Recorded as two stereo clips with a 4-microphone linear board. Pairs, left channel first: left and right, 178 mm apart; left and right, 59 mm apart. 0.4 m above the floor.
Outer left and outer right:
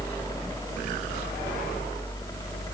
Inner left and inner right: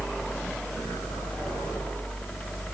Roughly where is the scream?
I don't hear a scream.